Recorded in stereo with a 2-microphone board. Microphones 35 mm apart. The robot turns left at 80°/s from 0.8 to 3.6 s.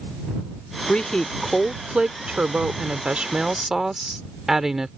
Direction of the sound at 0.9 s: 60° left.